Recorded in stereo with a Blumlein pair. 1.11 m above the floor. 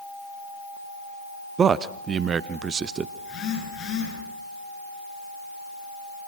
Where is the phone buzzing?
35° left, 10 m.